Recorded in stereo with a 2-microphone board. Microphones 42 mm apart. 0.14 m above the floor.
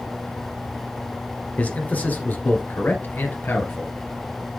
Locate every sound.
1.6 s a man speaking: 35° left (ahead or behind), 1.8 m; by 3.9 s 60° left (ahead or behind), 2.5 m